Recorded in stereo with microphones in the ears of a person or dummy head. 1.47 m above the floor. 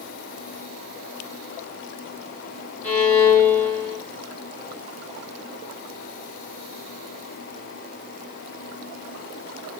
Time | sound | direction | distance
2.8 | a violin | 10° left (ahead or behind) | 1.7 m